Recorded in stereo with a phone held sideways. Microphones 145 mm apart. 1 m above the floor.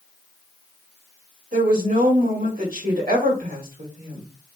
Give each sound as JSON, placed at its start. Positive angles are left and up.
{"t": 1.5, "sound": "a woman speaking", "side_deg": -70, "distance_m": 1.5}